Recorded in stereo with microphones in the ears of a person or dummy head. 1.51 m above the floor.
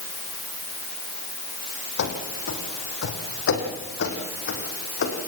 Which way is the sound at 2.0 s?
70° left (ahead or behind).